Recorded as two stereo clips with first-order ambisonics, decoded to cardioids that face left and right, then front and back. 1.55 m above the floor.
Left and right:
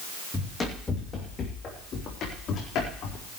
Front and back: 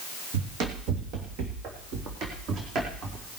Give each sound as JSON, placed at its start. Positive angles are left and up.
{"t": 0.3, "sound": "running footsteps", "azimuth_deg": 175, "distance_m": 3.5}